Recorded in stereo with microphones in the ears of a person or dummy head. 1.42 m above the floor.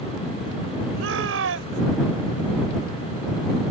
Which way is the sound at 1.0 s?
80° right.